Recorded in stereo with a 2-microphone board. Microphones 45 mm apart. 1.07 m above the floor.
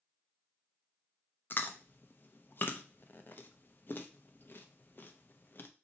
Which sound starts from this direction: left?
Chewing, at 1.5 s.